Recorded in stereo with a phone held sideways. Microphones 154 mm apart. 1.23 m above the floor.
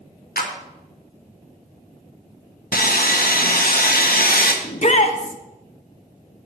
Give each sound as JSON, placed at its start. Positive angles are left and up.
{"t": 0.4, "sound": "a clap", "side_deg": 80, "distance_m": 1.1}
{"t": 2.7, "sound": "sawing", "side_deg": 70, "distance_m": 0.9}
{"t": 4.6, "sound": "a shout", "side_deg": 50, "distance_m": 0.7}